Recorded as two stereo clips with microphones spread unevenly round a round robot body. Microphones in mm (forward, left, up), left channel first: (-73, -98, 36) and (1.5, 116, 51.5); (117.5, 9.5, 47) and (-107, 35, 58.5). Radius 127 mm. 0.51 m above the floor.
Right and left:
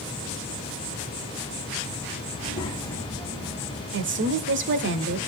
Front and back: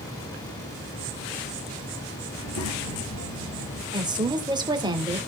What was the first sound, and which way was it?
A child speaking, 40° right.